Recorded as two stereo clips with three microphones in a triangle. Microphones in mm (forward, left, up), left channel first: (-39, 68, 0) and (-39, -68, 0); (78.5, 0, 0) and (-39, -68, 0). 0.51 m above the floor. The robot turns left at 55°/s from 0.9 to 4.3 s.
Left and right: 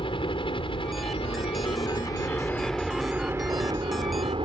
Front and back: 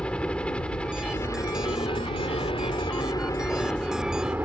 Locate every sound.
0.0 s a helicopter: 110° left; by 4.4 s 80° right